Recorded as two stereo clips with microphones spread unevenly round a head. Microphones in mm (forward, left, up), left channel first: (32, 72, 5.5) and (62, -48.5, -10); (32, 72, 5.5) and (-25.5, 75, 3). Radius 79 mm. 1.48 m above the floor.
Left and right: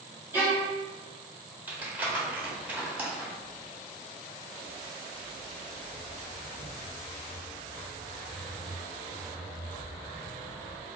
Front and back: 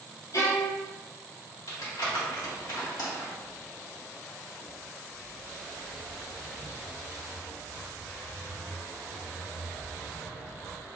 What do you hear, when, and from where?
0.3 s a violin: straight ahead, 2 m
1.7 s crumpling: straight ahead, 1.6 m
3.4 s footsteps: 140° left, 1.7 m; by 10.9 s straight ahead, 3.5 m